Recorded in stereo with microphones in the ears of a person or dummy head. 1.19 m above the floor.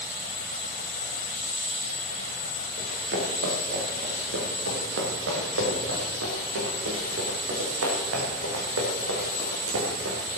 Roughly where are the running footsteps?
Right.